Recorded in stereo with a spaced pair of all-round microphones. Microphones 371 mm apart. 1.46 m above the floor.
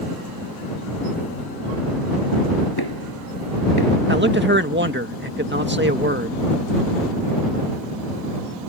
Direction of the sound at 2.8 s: 80° left.